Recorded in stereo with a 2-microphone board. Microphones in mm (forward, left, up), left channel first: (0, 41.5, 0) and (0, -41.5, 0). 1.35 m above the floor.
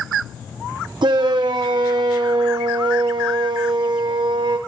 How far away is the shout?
About 0.9 m.